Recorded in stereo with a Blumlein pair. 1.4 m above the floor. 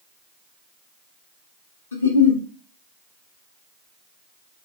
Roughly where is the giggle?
Ahead left.